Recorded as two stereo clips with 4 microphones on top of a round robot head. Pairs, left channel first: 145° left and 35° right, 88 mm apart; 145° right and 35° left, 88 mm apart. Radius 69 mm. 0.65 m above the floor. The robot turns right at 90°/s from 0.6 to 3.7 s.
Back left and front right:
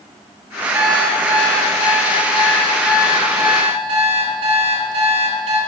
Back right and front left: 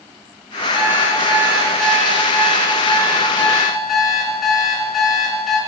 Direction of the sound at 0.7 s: 40° left.